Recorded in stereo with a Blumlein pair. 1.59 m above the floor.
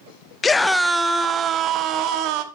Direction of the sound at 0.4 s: 15° left.